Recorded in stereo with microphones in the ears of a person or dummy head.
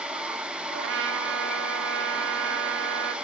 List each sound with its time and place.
0.7 s a trumpet: 65° right (ahead or behind), 1.4 m